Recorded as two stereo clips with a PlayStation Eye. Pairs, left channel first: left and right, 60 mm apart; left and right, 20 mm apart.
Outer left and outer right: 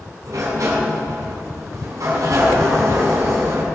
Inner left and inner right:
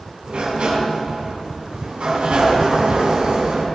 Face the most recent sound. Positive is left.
turn(degrees=-65)  # may be behind; listen again after turning